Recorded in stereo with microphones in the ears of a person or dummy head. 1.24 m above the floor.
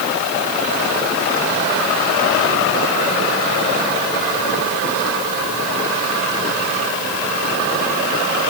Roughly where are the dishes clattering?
I don't hear dishes clattering.